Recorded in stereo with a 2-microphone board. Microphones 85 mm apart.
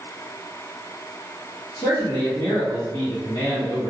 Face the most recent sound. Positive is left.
turn(degrees=70)  # may be behind; listen again after turning